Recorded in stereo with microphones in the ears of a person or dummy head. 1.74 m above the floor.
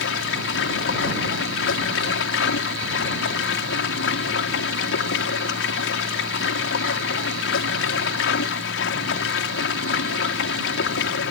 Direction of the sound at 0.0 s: 80° left.